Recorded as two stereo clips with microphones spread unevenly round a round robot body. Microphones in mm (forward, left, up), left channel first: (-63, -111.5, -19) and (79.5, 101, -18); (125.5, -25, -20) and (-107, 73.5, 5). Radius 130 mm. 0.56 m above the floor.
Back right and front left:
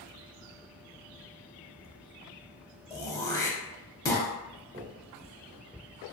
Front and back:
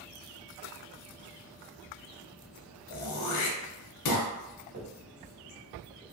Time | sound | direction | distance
2.9 | throat clearing | 45° right | 0.6 m
4.7 | a finger snap | 110° left | 1.2 m